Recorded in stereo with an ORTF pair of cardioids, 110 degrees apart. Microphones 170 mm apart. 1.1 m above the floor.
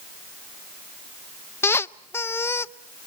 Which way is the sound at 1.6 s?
15° left.